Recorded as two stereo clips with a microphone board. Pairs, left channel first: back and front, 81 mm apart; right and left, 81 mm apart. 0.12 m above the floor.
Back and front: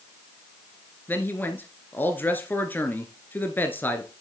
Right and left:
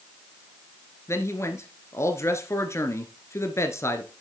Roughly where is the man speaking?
Behind right.